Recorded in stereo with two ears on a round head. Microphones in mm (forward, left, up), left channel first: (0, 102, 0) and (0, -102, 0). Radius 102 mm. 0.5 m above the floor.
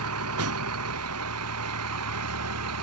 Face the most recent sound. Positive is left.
turn(degrees=-75)  # may be behind; listen again after turning